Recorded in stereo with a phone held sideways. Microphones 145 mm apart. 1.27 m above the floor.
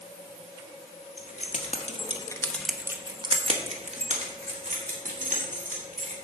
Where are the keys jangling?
65° left (ahead or behind), 1.6 m; by 6.2 s 70° right (ahead or behind), 3.5 m.